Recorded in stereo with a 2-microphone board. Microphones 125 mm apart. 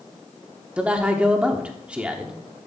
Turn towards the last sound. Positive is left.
turn(degrees=-10)  # may be behind; listen again after turning